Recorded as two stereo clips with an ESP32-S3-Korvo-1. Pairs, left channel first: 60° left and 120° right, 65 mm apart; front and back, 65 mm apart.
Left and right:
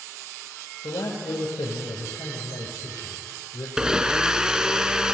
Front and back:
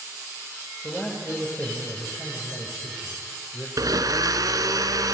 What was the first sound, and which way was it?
A man speaking, 75° left.